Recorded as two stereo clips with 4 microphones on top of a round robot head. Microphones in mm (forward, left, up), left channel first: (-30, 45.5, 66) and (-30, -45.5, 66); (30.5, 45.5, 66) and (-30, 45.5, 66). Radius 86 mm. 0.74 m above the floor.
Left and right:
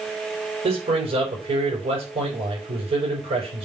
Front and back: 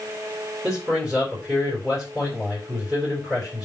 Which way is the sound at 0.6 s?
100° right.